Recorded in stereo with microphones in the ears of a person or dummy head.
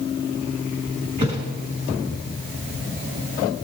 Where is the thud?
30° right (ahead or behind), 5 m.